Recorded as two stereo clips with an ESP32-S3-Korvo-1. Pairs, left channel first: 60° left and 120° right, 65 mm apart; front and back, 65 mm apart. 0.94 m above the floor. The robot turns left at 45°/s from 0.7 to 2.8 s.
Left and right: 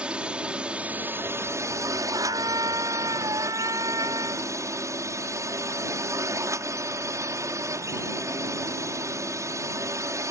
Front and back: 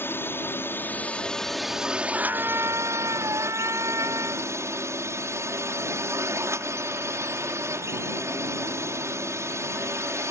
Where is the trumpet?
110° right; by 4.5 s 140° right.